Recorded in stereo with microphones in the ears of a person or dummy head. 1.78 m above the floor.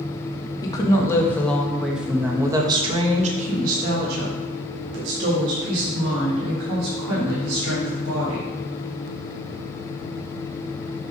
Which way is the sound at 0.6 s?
25° left (ahead or behind).